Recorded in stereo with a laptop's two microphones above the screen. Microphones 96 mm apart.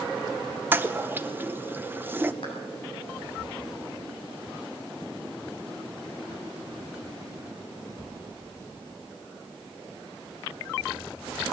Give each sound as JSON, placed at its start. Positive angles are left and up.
{"t": 0.7, "sound": "a toilet flushing", "side_deg": -20, "distance_m": 0.7}
{"t": 2.4, "sound": "a clap", "side_deg": 65, "distance_m": 7.5}